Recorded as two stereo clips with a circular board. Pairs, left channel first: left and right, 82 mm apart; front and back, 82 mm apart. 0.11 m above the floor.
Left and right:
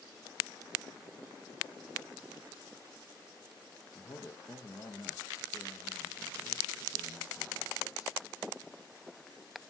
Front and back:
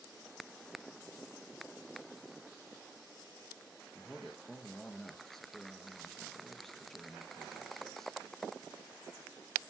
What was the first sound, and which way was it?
A man speaking, 85° left.